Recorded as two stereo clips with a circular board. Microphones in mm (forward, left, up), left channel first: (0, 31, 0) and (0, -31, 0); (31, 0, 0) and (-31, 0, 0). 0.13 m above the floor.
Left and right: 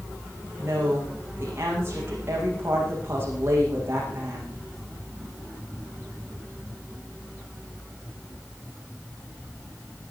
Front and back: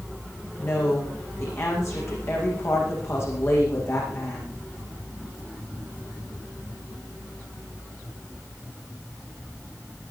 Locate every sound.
0.6 s a woman speaking: 40° right, 9.5 m